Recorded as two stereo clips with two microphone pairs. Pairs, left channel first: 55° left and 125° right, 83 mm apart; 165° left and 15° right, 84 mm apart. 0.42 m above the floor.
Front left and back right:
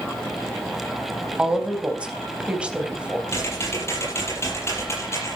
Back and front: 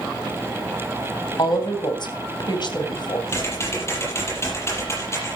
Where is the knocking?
I don't hear knocking.